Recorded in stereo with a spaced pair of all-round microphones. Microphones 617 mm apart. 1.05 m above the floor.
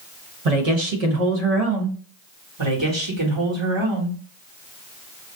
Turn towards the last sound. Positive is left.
turn(degrees=-45)  # may be behind; listen again after turning